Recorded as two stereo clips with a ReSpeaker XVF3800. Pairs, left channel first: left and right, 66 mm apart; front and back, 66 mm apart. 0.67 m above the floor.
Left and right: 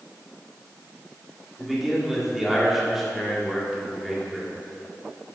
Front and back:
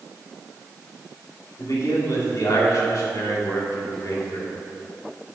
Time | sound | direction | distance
1.6 | a man speaking | 5° right | 1.6 m